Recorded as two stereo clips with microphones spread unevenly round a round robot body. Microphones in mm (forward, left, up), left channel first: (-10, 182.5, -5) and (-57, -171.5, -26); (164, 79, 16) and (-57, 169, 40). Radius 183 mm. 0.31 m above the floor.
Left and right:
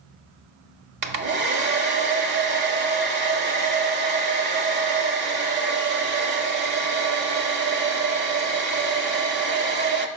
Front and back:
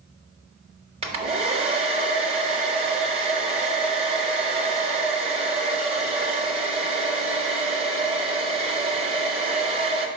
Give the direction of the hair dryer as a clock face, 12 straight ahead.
5 o'clock.